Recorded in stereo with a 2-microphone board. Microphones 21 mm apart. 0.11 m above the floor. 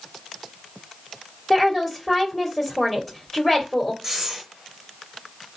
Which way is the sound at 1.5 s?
20° left (ahead or behind).